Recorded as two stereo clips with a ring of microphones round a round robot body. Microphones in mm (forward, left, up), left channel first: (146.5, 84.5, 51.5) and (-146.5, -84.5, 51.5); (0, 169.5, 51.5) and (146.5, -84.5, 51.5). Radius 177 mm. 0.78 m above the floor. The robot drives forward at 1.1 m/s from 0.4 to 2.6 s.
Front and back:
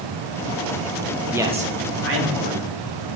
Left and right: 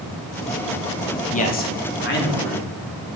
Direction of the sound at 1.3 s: 125° left.